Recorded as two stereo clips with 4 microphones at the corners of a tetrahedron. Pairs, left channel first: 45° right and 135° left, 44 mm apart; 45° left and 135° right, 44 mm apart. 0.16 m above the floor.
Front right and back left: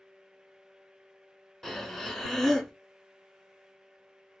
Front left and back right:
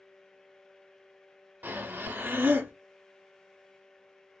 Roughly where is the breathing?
Behind right.